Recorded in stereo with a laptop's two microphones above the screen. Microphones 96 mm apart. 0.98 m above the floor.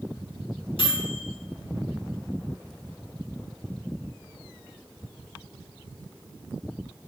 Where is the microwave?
65° left (ahead or behind), 3 m.